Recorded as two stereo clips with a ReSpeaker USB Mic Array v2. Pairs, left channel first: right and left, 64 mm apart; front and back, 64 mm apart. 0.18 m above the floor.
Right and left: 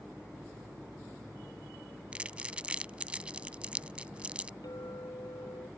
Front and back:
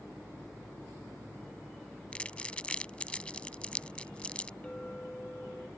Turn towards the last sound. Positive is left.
turn(degrees=-75)